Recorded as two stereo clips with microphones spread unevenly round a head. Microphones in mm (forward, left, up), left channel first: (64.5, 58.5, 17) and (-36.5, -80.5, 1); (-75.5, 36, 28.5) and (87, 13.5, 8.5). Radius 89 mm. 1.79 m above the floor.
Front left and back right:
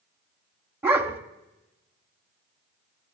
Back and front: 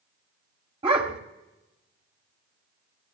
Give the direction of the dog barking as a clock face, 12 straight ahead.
2 o'clock.